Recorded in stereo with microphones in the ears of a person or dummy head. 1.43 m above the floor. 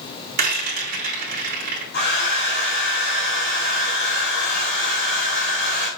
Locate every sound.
0.4 s a rattle: 45° right (ahead or behind), 2.5 m
1.9 s a hair dryer: 50° left (ahead or behind), 4.5 m